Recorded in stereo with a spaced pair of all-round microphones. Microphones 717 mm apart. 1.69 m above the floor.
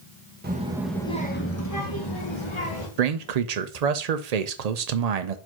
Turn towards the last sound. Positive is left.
turn(degrees=-65)  # may be behind; listen again after turning